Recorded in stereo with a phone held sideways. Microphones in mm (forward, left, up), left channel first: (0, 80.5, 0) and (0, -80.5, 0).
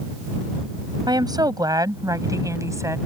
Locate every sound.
1.1 s a woman speaking: 25° right (ahead or behind); by 3.0 s 20° right (ahead or behind)